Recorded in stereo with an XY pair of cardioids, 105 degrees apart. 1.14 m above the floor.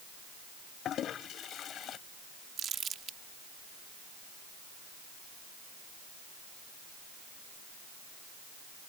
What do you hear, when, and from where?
0.8 s a toilet flushing: 65° left
2.6 s crumpling: 55° right